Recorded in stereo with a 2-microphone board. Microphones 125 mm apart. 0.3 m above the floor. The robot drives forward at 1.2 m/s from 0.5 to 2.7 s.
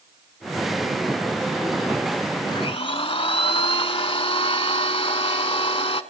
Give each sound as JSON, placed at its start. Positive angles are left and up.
{"t": 2.5, "sound": "a blender", "side_deg": 40, "distance_m": 0.9}